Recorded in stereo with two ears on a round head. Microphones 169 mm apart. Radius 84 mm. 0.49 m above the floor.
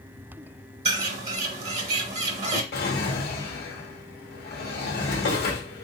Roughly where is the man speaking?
I don't hear a man speaking.